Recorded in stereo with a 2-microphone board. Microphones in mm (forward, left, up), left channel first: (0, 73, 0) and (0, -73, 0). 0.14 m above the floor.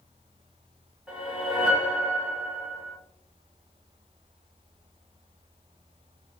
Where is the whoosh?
5° right (ahead or behind), 1.5 m.